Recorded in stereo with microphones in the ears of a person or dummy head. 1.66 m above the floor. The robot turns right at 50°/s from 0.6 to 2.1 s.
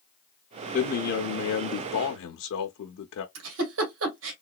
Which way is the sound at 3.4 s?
75° right (ahead or behind).